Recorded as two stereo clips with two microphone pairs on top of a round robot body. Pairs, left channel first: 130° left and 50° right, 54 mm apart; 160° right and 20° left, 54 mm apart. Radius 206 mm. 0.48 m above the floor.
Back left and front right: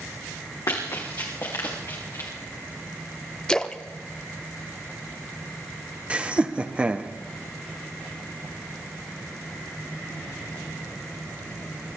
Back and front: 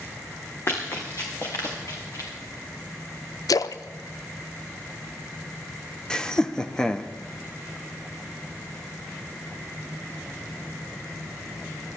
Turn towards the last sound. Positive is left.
turn(degrees=-95)